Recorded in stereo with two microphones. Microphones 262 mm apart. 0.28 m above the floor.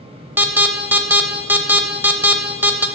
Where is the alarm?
10° right (ahead or behind), 0.6 m.